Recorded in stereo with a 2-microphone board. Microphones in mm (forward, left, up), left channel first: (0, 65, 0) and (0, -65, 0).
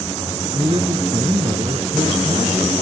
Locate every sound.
0.5 s a man speaking: 45° right (ahead or behind), 1.5 m